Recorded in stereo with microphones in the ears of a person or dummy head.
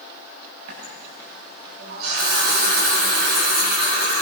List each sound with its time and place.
0.7 s a running tap: 55° right (ahead or behind), 8 m